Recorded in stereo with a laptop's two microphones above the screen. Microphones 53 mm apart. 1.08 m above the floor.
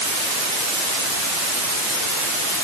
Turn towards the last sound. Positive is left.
No sound to turn to.